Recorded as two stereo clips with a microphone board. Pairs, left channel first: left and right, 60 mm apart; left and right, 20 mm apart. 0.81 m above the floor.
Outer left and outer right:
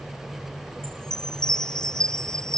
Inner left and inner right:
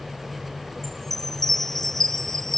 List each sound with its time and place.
0.8 s a chime: 10° left (ahead or behind)